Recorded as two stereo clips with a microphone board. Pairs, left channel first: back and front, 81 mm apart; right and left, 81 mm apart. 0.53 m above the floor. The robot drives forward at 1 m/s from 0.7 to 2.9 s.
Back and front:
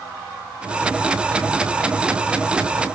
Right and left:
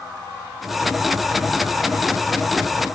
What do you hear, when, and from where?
Only background noise.